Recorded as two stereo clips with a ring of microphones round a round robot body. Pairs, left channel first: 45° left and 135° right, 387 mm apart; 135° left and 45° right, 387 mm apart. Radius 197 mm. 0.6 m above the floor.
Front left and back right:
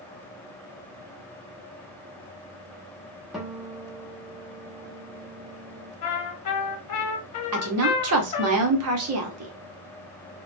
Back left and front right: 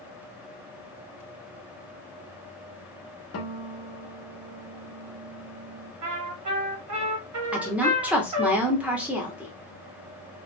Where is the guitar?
135° left, 0.9 m.